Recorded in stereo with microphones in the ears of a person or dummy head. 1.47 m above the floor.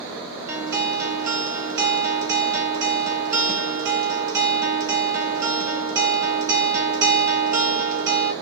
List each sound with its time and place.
0.5 s a guitar: 10° right (ahead or behind), 1.3 m